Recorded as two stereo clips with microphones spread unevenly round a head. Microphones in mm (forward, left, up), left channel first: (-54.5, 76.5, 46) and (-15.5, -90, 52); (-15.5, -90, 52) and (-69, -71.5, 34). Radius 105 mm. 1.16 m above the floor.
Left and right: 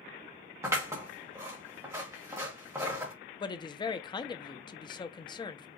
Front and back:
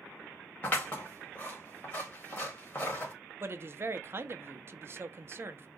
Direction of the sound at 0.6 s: 5° right.